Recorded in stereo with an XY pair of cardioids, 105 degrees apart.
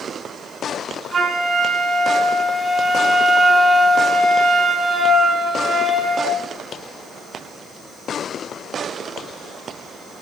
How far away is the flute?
About 5.5 m.